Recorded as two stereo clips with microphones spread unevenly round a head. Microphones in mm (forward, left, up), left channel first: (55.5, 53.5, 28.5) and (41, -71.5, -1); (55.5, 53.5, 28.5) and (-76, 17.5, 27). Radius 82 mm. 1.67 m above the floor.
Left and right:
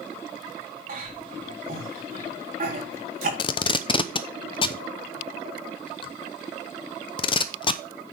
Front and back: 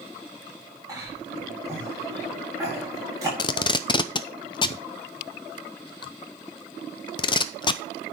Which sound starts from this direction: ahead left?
Tape being pulled, at 3.4 s.